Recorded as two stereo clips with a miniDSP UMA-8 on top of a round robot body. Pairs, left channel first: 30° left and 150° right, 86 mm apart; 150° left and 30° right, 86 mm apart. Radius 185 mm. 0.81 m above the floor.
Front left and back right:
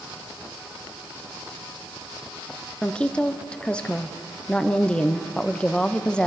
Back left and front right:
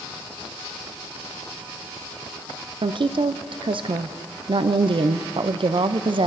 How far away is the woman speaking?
About 0.6 m.